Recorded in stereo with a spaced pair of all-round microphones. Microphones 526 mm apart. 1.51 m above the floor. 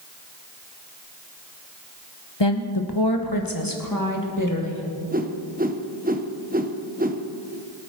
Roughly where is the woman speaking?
Left.